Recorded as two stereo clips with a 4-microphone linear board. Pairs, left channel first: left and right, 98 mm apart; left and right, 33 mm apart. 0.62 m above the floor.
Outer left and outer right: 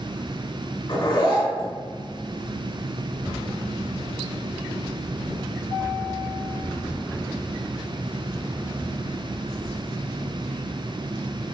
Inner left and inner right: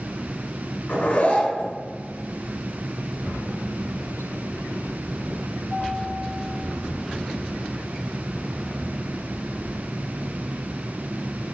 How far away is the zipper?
About 2 m.